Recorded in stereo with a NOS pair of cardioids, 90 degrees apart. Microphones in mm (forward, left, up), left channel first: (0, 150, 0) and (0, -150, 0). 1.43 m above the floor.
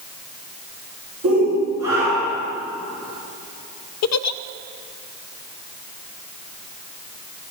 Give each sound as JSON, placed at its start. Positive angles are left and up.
{"t": 1.2, "sound": "a shout", "azimuth_deg": -55, "distance_m": 5.5}
{"t": 4.0, "sound": "a giggle", "azimuth_deg": 60, "distance_m": 0.6}